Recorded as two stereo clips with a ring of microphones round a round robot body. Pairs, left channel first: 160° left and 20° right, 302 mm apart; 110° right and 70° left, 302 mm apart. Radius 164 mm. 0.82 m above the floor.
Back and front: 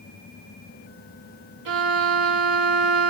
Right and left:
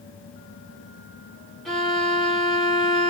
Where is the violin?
25° right, 1.4 m.